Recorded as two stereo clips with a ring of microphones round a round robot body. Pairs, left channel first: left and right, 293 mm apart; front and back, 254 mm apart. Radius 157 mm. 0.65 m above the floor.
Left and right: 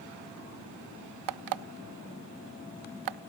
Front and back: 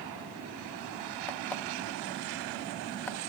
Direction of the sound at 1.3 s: 85° right.